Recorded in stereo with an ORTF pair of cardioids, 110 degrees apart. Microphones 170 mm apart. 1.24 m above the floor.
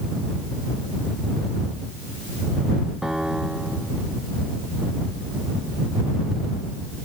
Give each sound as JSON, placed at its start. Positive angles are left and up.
{"t": 3.0, "sound": "a piano", "azimuth_deg": -5}